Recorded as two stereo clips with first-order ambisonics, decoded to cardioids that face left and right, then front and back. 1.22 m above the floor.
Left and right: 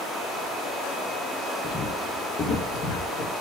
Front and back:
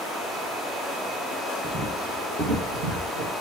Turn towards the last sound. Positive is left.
turn(degrees=140)